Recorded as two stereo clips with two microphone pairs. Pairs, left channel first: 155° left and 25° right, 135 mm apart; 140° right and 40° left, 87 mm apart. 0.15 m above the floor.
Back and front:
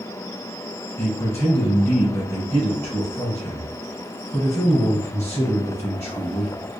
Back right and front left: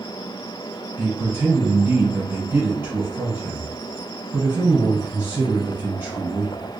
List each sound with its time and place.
1.0 s a man speaking: 90° left, 2 m